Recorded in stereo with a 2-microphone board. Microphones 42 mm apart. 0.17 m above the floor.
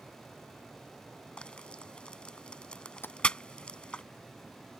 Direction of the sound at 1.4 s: 25° left (ahead or behind).